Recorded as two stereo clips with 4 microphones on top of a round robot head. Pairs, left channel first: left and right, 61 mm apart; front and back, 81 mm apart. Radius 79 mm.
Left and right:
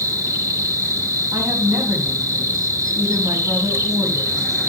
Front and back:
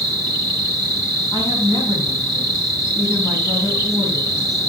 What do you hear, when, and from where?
0.0 s an insect: 60° right, 5.5 m
1.3 s a woman speaking: 35° right, 4.5 m